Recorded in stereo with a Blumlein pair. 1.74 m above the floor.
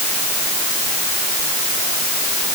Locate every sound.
Only background noise.